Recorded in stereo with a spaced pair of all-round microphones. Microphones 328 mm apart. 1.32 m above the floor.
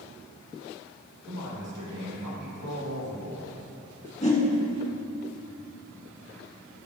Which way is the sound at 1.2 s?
75° right (ahead or behind).